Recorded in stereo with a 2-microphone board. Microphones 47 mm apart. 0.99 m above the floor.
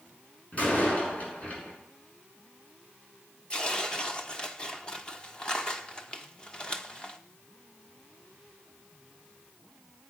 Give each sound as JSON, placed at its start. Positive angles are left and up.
{"t": 0.5, "sound": "a door slam", "side_deg": 30, "distance_m": 7.0}
{"t": 3.5, "sound": "tearing paper", "side_deg": 20, "distance_m": 1.2}